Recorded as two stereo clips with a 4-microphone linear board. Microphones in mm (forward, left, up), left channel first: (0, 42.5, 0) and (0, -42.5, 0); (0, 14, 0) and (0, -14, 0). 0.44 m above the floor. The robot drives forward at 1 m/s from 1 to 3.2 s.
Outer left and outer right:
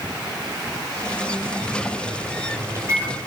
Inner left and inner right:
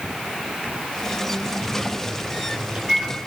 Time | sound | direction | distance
1.6 | a microwave | 45° right (ahead or behind) | 5 m